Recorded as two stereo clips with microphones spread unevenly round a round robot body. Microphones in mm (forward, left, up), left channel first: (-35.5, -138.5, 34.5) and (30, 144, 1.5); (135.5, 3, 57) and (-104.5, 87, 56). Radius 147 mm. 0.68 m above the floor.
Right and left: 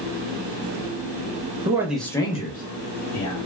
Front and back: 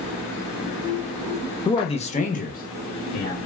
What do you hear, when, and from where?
1.6 s a man speaking: 35° left, 0.7 m; by 3.4 s 65° right, 1.0 m